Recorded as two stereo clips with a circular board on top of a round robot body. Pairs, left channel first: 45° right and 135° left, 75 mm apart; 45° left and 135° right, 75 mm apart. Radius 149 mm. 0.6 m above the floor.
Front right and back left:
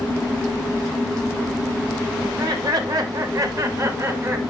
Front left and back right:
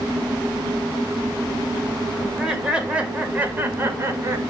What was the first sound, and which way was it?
Laughter, 140° left.